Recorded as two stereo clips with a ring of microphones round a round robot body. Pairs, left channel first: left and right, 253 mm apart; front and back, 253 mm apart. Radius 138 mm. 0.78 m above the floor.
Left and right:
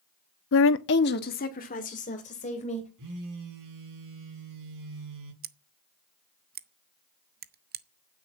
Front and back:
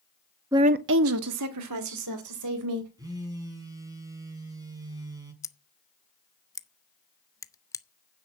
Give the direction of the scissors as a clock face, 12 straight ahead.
2 o'clock.